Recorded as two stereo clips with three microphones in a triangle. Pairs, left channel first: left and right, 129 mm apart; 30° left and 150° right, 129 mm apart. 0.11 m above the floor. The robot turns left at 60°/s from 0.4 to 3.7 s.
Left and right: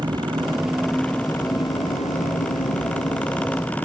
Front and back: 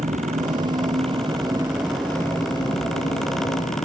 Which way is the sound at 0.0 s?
145° right.